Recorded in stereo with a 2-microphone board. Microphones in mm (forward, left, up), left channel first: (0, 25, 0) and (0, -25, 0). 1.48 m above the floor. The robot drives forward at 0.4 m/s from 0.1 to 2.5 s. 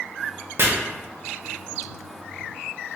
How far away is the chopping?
About 0.7 m.